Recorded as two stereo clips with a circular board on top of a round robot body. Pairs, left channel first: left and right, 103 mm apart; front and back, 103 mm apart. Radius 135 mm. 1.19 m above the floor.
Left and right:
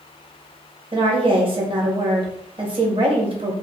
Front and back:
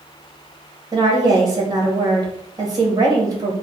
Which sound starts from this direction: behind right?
A woman speaking, at 0.9 s.